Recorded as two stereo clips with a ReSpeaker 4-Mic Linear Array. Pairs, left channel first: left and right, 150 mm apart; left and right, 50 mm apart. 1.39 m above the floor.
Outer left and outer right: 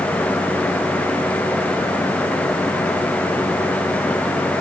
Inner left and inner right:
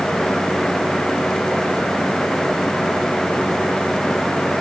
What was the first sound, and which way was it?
Only background noise.